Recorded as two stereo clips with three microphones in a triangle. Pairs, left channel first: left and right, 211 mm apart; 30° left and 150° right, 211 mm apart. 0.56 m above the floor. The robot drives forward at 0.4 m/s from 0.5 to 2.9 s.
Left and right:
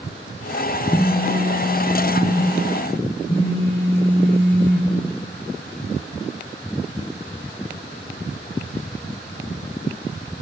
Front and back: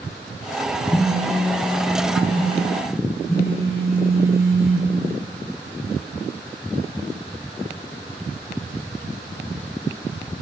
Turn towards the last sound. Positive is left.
turn(degrees=70)